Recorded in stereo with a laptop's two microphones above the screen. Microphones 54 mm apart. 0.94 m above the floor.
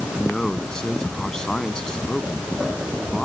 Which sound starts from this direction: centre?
A man speaking, at 0.1 s.